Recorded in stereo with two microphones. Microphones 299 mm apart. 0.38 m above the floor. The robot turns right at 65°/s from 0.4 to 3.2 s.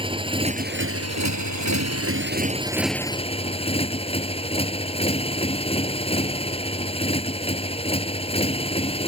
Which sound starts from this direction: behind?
A motorcycle, at 0.0 s.